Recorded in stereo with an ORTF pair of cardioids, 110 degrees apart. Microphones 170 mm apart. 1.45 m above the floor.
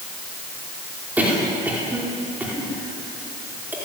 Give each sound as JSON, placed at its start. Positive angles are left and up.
{"t": 1.2, "sound": "a cough", "azimuth_deg": -10, "distance_m": 5.0}